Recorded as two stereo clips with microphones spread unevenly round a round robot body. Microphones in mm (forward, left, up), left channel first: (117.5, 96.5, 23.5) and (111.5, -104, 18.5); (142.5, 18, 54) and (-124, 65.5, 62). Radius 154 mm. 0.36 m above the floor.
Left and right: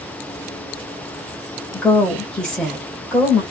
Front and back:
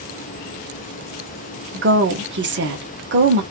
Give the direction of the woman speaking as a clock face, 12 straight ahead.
6 o'clock.